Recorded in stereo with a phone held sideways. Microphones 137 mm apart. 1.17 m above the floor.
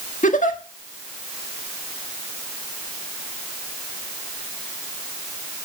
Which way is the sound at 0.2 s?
75° left (ahead or behind).